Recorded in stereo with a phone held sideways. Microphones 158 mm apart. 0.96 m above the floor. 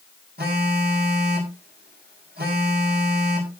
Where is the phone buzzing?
80° right, 4.5 m.